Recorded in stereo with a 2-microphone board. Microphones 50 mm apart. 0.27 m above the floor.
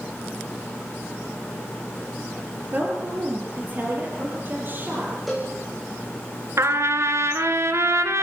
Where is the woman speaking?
35° right (ahead or behind), 7 m; by 5.1 s 45° right (ahead or behind), 8.5 m.